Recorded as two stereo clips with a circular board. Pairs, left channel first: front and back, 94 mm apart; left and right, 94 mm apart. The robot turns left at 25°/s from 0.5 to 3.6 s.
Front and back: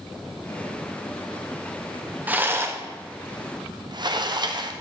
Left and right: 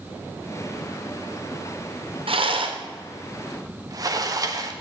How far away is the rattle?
About 0.9 m.